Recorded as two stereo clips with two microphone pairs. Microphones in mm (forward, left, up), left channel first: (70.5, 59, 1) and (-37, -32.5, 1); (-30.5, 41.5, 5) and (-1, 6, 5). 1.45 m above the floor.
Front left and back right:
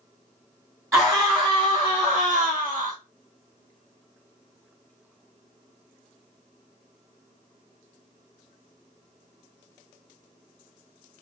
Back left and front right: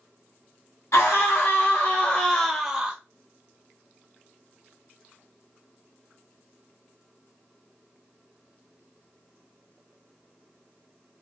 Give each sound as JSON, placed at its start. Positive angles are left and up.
{"t": 0.9, "sound": "a scream", "azimuth_deg": 145, "distance_m": 1.7}